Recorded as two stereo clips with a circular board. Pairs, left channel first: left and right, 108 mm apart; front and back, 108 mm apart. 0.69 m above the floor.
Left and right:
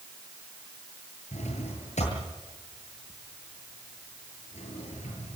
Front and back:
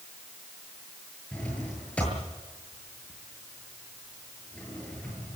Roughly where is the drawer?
Left.